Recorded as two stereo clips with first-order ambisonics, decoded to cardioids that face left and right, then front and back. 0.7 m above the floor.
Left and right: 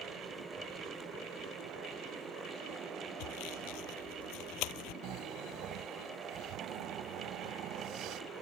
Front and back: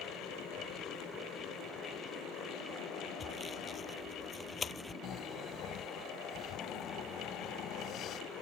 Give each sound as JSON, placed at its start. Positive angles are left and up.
{"t": 3.2, "sound": "sawing", "azimuth_deg": 70}
{"t": 5.0, "sound": "snoring", "azimuth_deg": -50}